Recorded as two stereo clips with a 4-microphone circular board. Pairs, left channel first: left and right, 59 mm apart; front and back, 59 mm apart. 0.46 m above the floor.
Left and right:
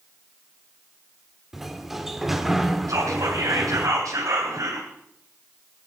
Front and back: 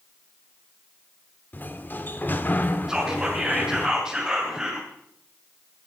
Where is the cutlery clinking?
I don't hear cutlery clinking.